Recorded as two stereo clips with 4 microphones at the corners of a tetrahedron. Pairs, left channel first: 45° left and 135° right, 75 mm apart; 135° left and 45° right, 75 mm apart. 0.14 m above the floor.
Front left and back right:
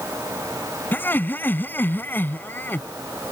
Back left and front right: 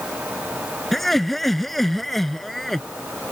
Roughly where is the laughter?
Ahead left.